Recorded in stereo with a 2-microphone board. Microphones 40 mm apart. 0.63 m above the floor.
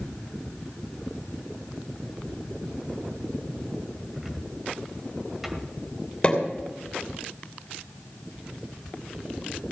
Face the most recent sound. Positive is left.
turn(degrees=25)  # may be behind; listen again after turning